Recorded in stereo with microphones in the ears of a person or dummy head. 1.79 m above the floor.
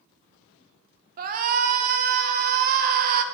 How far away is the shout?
About 0.8 m.